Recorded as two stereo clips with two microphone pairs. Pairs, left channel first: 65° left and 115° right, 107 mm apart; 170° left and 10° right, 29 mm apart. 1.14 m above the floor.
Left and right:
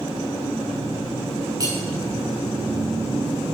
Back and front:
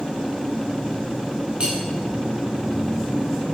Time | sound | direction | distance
1.6 | cutlery clinking | 60° right | 3 m